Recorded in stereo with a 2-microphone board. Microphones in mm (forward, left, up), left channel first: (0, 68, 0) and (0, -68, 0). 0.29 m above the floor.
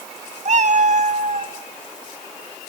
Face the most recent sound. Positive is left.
turn(degrees=-60)  # may be behind; listen again after turning